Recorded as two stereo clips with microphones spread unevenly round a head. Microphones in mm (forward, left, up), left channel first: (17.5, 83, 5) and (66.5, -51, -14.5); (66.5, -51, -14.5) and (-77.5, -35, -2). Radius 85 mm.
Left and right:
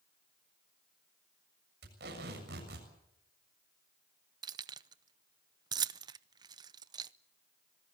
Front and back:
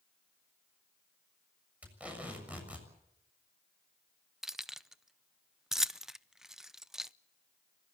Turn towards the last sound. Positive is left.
turn(degrees=-115)